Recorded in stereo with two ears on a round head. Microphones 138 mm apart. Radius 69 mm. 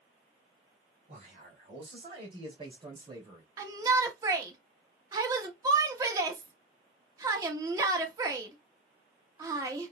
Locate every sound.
1.1 s a man speaking: 55° right (ahead or behind), 4 m; by 3.5 s 25° right (ahead or behind), 2.5 m
3.6 s a shout: 20° right (ahead or behind), 1.1 m